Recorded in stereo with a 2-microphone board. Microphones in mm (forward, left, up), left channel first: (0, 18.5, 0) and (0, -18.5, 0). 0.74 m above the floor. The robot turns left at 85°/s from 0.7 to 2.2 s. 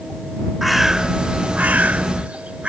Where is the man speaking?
I don't hear a man speaking.